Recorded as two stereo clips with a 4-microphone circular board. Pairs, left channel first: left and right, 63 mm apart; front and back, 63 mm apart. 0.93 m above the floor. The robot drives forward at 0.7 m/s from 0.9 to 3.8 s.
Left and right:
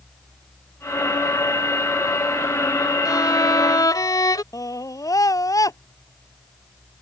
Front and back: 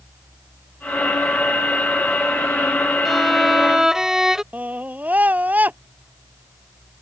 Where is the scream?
115° left.